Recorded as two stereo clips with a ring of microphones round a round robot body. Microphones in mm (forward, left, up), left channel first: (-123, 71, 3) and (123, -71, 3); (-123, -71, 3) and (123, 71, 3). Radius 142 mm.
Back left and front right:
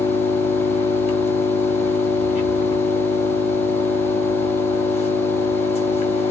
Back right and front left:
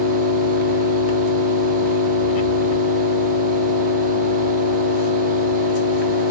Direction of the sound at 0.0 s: 140° right.